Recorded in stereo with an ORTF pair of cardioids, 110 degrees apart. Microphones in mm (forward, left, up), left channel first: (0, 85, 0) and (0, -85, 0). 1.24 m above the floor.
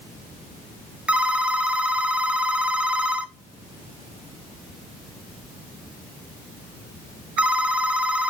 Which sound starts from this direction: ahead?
A phone ringing, at 1.1 s.